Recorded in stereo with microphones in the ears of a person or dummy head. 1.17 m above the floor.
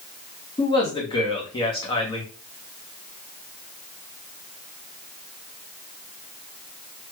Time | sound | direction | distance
0.6 | a man speaking | 30° left (ahead or behind) | 1.4 m